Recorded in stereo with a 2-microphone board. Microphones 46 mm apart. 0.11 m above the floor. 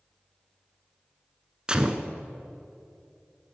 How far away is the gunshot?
About 0.6 m.